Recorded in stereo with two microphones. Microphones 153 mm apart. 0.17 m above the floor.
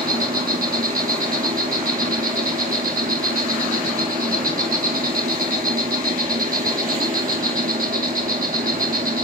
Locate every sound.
0.0 s an insect: 65° right (ahead or behind), 0.8 m